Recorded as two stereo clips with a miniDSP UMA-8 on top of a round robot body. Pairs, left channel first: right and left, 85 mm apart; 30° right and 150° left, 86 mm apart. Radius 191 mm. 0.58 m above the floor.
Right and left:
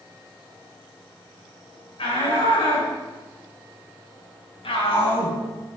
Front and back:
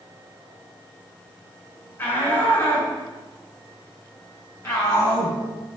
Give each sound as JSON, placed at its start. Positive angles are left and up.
{"t": 2.0, "sound": "a shout", "azimuth_deg": -95, "distance_m": 8.5}